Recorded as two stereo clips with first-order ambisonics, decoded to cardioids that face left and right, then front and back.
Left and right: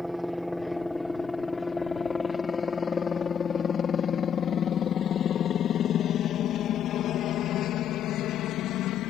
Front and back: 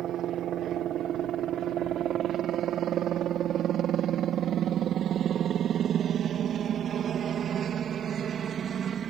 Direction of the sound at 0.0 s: 175° right.